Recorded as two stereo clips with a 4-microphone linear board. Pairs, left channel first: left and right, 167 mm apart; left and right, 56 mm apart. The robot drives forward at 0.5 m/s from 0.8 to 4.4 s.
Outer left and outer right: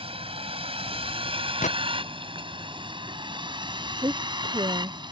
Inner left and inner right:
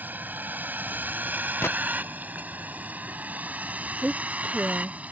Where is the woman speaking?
20° right (ahead or behind); by 5.0 s 25° right (ahead or behind).